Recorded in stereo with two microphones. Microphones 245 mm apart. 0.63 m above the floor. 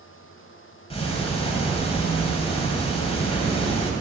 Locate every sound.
0.9 s ticking: 25° left (ahead or behind), 1.8 m